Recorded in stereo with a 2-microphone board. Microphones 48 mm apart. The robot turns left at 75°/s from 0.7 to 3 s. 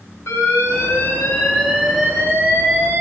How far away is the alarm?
About 5 m.